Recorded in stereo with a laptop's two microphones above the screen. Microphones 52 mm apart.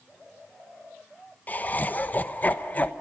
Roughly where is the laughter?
Left.